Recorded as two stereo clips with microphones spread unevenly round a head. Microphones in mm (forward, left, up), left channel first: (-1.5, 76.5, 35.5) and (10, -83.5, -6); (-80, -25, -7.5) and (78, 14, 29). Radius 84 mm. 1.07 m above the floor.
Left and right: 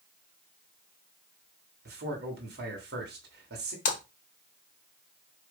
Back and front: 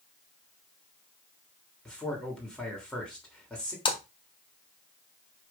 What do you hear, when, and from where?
1.9 s a man speaking: 85° right, 3 m
3.9 s a splash: 130° left, 1.7 m